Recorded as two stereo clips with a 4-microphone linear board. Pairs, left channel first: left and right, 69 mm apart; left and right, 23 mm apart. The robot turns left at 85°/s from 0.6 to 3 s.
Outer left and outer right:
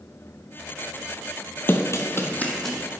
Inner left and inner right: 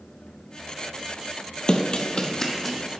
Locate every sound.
1.7 s running footsteps: 35° left (ahead or behind), 0.8 m; by 2.9 s 15° right (ahead or behind), 1.7 m